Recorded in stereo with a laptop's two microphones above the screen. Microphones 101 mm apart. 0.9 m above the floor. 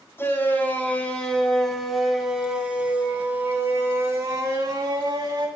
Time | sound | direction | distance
0.2 | a shout | 20° left (ahead or behind) | 5 m